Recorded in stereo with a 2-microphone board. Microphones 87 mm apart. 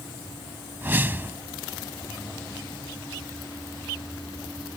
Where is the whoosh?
25° right (ahead or behind).